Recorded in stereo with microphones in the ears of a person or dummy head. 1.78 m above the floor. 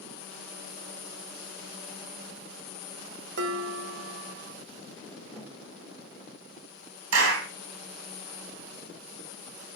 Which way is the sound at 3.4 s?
60° right (ahead or behind).